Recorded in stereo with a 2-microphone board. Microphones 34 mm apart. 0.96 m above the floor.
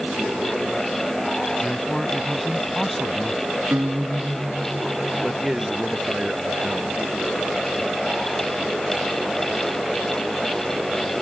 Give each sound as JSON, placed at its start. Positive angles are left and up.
{"t": 1.6, "sound": "a man speaking", "side_deg": 5}
{"t": 3.7, "sound": "a guitar", "side_deg": -80}
{"t": 5.2, "sound": "a man speaking", "side_deg": -15}